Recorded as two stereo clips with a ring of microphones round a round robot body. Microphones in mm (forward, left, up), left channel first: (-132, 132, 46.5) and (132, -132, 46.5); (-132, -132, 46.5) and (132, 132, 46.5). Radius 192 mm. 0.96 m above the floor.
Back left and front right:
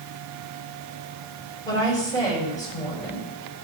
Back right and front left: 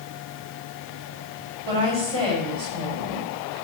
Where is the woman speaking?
55° left, 6.5 m.